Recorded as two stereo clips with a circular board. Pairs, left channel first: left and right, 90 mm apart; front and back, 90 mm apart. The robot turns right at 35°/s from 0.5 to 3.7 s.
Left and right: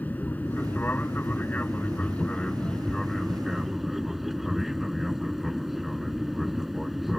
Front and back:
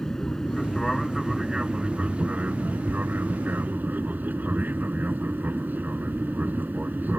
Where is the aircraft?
75° left; by 7.2 s 175° right.